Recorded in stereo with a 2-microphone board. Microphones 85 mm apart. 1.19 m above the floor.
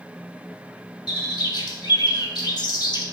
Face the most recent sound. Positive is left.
turn(degrees=55)  # may be behind; listen again after turning